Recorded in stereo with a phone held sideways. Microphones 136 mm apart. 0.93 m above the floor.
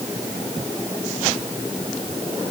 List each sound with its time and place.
Only background noise.